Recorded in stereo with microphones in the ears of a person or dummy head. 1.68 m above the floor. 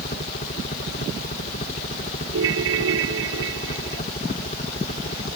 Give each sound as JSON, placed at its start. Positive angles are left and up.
{"t": 0.0, "sound": "a helicopter", "side_deg": 40}
{"t": 2.3, "sound": "a ringtone", "side_deg": -75}